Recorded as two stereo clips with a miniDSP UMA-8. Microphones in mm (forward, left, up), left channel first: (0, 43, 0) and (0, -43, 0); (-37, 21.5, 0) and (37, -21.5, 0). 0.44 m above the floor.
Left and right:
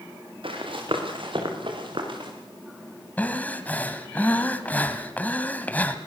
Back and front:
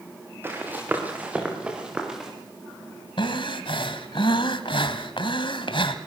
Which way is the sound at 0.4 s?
95° right.